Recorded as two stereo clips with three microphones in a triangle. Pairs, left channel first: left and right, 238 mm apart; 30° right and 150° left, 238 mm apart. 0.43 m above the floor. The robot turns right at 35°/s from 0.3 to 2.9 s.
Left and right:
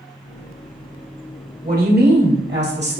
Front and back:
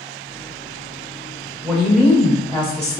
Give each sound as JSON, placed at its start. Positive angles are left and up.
{"t": 1.6, "sound": "a woman speaking", "azimuth_deg": -125, "distance_m": 1.3}